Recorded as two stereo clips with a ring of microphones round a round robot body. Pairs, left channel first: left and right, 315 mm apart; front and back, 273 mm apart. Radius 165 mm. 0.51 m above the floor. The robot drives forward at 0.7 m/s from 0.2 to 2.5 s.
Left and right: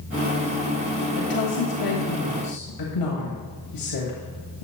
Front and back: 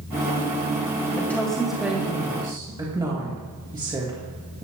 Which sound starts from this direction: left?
A woman speaking, at 1.1 s.